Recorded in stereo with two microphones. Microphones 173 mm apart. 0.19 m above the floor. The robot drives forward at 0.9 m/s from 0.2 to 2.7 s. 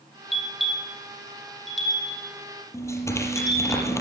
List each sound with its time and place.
0.3 s a bell: centre (ahead or behind), 4.5 m
2.7 s tearing paper: 15° left (ahead or behind), 5 m